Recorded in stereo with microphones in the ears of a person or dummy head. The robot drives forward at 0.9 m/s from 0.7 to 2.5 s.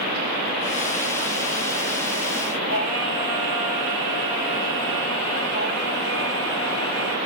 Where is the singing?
10° right (ahead or behind), 1.8 m.